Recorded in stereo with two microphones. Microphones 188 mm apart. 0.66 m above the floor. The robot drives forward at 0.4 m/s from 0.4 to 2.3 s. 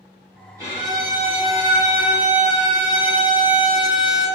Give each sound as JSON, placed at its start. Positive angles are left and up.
{"t": 0.6, "sound": "a violin", "side_deg": -15, "distance_m": 1.6}